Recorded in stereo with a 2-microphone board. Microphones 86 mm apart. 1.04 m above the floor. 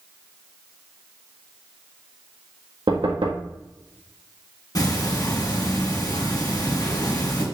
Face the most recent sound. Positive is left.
turn(degrees=50)  # may be behind; listen again after turning